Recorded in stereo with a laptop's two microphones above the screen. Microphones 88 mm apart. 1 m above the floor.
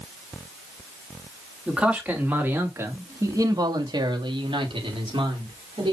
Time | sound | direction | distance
1.7 | a man speaking | 10° right (ahead or behind) | 3 m